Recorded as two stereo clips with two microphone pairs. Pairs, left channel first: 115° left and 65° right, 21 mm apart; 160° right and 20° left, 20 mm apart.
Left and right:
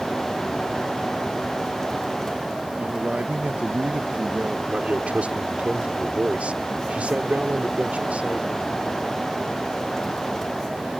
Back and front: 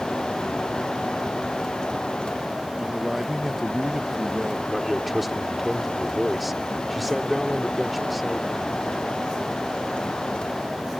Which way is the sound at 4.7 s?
70° right.